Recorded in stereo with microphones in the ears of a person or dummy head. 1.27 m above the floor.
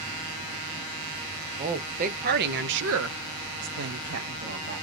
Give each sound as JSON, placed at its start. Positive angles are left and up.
{"t": 1.6, "sound": "a woman speaking", "side_deg": -35, "distance_m": 1.1}